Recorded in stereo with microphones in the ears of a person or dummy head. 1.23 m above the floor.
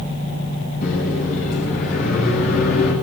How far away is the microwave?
About 7 m.